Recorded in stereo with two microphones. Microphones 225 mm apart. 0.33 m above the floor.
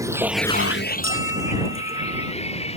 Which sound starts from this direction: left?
A bell, at 1.0 s.